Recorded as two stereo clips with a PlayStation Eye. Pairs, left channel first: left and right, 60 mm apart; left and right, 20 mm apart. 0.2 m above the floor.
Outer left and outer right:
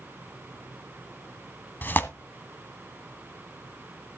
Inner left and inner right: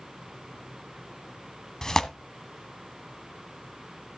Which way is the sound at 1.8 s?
35° left (ahead or behind).